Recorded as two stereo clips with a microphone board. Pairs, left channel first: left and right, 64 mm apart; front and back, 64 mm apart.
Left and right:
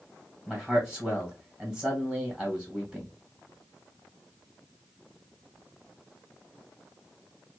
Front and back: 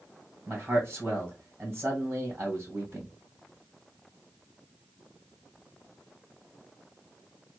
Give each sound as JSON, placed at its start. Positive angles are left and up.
{"t": 0.5, "sound": "a man speaking", "azimuth_deg": -140, "distance_m": 1.5}